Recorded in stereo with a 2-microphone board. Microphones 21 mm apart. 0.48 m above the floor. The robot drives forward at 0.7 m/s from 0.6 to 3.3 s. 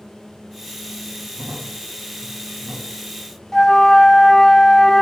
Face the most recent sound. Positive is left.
turn(degrees=25)  # may be behind; listen again after turning